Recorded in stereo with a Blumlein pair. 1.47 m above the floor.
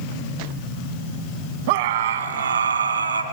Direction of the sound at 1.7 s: 50° right.